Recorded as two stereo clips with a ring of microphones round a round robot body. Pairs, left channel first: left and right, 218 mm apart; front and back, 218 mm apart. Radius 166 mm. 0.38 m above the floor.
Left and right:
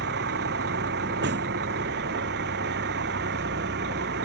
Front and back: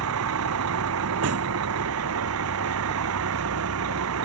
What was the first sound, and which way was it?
A vehicle, 145° right.